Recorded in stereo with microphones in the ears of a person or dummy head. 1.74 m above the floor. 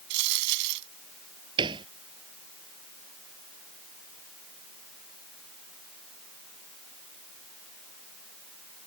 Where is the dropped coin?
60° right (ahead or behind).